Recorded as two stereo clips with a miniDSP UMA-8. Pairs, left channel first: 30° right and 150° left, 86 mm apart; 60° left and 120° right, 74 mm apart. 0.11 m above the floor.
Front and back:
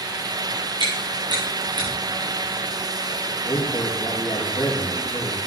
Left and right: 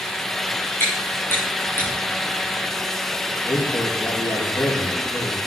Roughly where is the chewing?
Behind left.